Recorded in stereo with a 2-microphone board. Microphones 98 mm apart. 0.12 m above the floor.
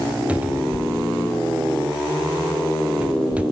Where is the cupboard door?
15° right (ahead or behind), 0.9 m.